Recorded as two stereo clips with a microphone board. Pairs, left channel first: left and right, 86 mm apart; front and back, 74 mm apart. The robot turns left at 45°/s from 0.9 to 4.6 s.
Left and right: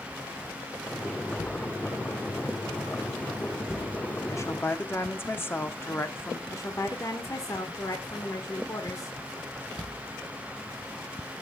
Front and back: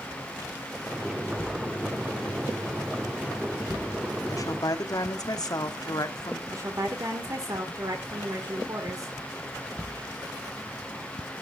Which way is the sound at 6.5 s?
140° left.